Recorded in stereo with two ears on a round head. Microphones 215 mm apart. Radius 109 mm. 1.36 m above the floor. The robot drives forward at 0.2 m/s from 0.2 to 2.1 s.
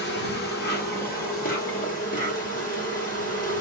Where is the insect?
45° left (ahead or behind), 1.2 m; by 3.6 s 35° left (ahead or behind), 1.4 m.